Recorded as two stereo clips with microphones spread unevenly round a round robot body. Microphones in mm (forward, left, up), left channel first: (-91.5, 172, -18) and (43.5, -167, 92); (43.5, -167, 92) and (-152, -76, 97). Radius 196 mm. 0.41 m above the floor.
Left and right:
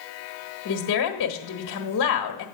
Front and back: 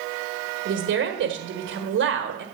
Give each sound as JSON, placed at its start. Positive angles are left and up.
{"t": 0.7, "sound": "a woman speaking", "azimuth_deg": 140, "distance_m": 1.4}